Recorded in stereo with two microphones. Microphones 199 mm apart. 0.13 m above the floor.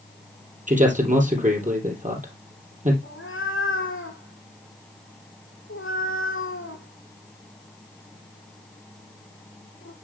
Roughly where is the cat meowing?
Left.